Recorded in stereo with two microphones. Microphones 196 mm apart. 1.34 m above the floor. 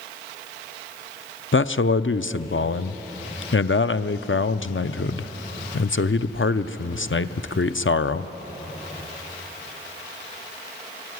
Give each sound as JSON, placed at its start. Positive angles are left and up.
{"t": 1.5, "sound": "a man speaking", "side_deg": 75, "distance_m": 0.5}